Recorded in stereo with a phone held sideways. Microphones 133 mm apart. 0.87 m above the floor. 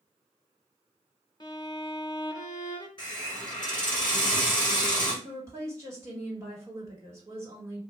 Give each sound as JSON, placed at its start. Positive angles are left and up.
{"t": 1.4, "sound": "a violin", "side_deg": 35, "distance_m": 0.6}
{"t": 3.0, "sound": "a hiss", "side_deg": 35, "distance_m": 1.5}
{"t": 5.2, "sound": "a woman speaking", "side_deg": -20, "distance_m": 1.7}